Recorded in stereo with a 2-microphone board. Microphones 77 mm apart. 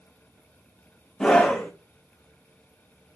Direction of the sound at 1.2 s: 10° left (ahead or behind).